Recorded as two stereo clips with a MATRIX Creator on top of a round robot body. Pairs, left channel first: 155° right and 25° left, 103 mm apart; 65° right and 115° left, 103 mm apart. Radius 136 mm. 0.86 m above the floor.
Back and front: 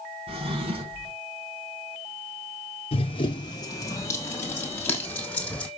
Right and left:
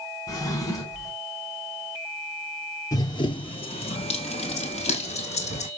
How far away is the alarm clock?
No alarm clock in this recording.